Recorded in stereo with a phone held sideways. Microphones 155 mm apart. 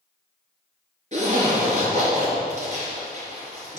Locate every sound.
1.1 s a zipper: 45° right (ahead or behind), 3.5 m